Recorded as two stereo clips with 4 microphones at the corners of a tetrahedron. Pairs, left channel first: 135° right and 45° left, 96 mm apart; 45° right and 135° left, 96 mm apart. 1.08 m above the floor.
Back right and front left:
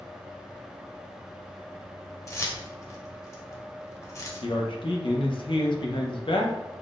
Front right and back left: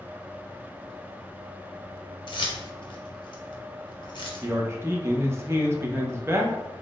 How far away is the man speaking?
About 0.5 m.